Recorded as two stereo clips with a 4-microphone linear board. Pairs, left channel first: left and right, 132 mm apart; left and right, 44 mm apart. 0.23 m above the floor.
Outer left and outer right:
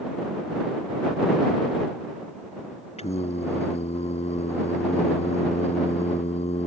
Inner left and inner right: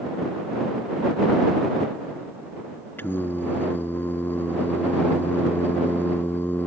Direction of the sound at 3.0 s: 55° left (ahead or behind).